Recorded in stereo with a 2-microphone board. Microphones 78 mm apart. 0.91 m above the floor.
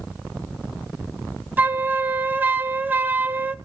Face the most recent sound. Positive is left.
turn(degrees=-25)  # may be behind; listen again after turning